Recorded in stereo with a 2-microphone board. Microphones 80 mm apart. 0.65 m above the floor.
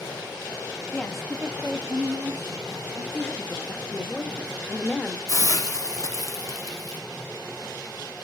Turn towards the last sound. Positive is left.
turn(degrees=45)  # may be behind; listen again after turning